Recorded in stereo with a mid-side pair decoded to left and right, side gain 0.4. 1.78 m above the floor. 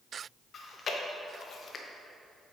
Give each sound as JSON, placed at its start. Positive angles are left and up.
{"t": 0.5, "sound": "chewing", "azimuth_deg": 55, "distance_m": 1.2}